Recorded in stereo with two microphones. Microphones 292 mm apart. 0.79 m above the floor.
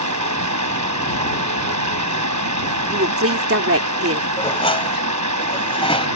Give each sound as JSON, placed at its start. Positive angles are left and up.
{"t": 0.0, "sound": "running water", "side_deg": -80}
{"t": 2.9, "sound": "a woman speaking", "side_deg": -50}
{"t": 4.4, "sound": "dishes clattering", "side_deg": 20}